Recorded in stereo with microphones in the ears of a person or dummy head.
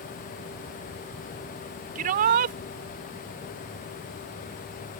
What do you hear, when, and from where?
1.9 s a shout: 45° right (ahead or behind)